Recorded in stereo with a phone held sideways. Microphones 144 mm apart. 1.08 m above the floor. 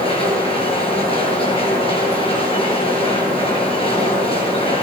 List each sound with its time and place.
0.0 s a machine running: 40° left (ahead or behind), 9.5 m